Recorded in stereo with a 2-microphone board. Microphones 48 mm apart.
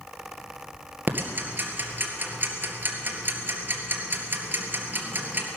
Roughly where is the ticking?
Right.